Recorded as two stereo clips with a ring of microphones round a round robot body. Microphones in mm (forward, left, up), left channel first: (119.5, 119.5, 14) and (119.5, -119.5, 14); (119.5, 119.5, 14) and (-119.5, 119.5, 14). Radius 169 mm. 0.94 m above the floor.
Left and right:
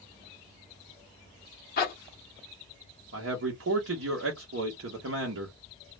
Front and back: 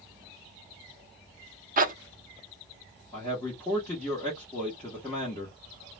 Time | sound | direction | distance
1.8 | a zipper | 135° left | 0.6 m
3.1 | a man speaking | 80° right | 0.8 m